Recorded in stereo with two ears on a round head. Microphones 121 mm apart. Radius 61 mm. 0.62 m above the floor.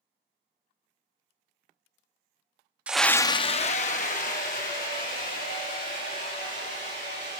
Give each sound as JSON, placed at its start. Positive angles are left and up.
{"t": 2.9, "sound": "a scream", "side_deg": -10, "distance_m": 0.6}